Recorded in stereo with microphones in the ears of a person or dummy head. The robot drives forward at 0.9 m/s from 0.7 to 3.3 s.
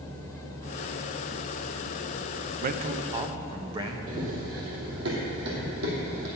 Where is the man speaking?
50° right (ahead or behind), 0.5 m; by 4.0 s 25° right (ahead or behind), 1.0 m.